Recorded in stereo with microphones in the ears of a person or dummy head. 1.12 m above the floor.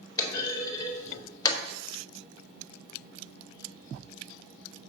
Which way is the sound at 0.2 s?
15° left (ahead or behind).